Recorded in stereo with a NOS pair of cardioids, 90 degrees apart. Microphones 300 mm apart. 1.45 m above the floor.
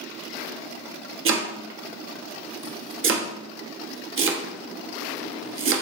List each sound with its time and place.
1.2 s chopping: 45° right, 0.6 m